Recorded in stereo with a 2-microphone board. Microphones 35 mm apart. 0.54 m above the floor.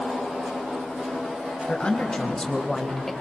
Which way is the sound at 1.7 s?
30° left (ahead or behind).